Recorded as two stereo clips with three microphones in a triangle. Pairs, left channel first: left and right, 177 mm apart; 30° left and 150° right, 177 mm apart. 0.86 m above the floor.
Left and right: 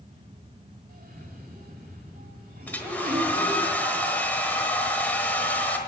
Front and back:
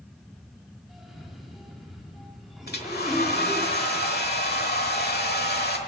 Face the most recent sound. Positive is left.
turn(degrees=10)